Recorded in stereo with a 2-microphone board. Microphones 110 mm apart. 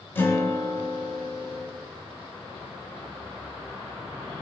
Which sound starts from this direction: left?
A guitar, at 0.1 s.